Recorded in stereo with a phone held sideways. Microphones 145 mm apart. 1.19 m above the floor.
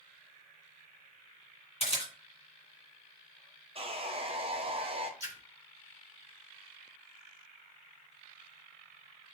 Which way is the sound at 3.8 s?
40° right (ahead or behind).